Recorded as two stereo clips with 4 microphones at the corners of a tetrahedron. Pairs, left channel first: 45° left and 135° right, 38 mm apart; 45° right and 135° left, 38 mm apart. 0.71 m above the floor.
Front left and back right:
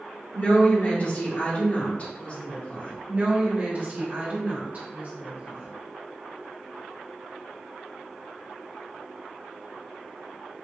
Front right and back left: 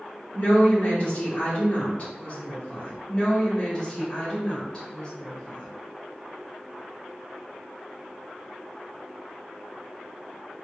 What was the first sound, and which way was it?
A woman speaking, straight ahead.